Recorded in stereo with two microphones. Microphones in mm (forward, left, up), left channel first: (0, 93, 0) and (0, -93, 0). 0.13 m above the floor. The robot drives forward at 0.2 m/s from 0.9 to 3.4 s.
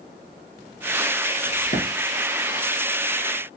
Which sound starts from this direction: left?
A crack, at 1.4 s.